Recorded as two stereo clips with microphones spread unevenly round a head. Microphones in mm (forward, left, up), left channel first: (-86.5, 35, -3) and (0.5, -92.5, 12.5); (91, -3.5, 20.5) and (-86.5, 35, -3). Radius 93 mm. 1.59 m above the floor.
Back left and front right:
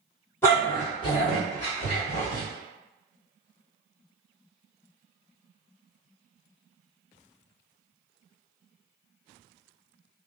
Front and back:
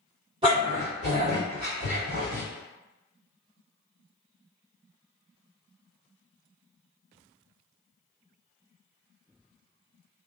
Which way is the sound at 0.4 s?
Straight behind.